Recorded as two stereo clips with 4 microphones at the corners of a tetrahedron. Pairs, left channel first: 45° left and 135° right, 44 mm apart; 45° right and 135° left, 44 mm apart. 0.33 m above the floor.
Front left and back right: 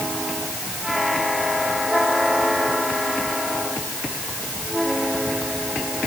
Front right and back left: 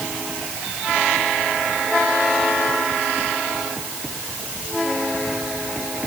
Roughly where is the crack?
I don't hear a crack.